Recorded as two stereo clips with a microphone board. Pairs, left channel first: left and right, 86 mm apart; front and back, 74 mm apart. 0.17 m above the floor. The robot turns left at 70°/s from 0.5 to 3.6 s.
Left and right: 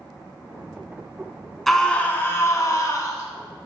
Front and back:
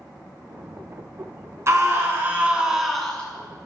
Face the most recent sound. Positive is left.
turn(degrees=40)